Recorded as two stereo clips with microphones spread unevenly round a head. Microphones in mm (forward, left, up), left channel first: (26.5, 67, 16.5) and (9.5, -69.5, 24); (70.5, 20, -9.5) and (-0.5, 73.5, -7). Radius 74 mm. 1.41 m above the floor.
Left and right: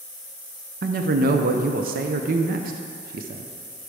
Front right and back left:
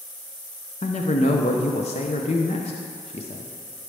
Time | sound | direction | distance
0.8 | a man speaking | 70° right | 0.5 m